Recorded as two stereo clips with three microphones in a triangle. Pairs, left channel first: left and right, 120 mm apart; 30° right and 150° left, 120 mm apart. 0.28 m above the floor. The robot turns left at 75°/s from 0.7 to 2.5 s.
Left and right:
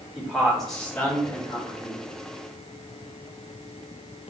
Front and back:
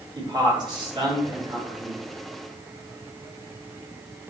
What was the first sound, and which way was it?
A man speaking, 175° left.